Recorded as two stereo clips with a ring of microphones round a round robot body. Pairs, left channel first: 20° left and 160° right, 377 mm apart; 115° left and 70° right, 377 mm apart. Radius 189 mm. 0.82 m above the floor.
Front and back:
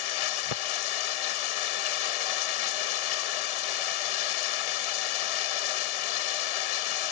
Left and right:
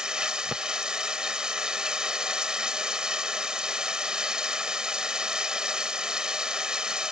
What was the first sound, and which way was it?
Running water, 20° left.